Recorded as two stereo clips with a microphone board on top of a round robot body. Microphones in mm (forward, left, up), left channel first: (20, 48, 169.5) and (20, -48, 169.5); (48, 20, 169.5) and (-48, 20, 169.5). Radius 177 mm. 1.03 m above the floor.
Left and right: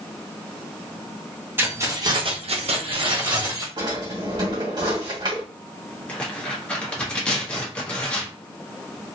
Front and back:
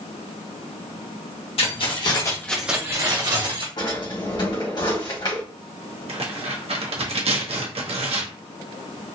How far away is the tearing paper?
About 1.0 m.